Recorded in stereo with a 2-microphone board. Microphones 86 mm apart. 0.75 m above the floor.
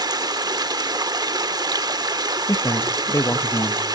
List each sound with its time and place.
0.0 s running water: 60° right (ahead or behind), 0.8 m
2.5 s a man speaking: 35° left (ahead or behind), 0.5 m